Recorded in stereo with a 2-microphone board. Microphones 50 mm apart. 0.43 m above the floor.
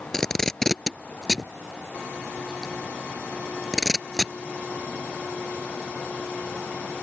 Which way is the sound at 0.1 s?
10° left (ahead or behind).